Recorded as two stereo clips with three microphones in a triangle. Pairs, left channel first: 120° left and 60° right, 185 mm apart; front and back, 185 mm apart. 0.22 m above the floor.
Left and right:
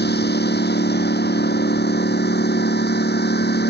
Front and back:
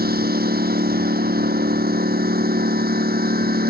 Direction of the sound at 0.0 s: 145° left.